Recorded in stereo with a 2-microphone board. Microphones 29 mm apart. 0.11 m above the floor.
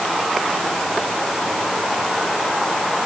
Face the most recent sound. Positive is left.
No sound to turn to.